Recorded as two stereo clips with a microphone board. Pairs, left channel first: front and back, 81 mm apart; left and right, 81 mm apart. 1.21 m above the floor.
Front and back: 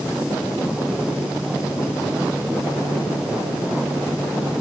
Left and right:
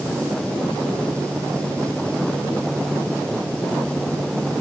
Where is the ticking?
I don't hear ticking.